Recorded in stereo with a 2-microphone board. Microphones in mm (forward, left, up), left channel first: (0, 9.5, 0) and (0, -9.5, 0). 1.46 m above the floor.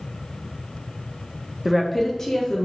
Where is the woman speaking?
20° right (ahead or behind), 0.5 m; by 2.7 s 35° left (ahead or behind), 1.5 m.